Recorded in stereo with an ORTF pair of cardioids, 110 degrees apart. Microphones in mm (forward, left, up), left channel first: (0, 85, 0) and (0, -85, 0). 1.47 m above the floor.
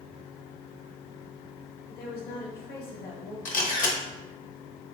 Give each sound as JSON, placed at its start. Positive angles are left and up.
{"t": 1.9, "sound": "a woman speaking", "azimuth_deg": 60, "distance_m": 1.1}
{"t": 3.5, "sound": "a camera shutter", "azimuth_deg": 50, "distance_m": 0.9}